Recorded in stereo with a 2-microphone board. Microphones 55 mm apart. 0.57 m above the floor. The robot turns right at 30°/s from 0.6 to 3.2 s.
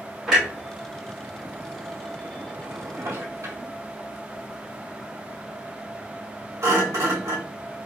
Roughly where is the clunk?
Centre.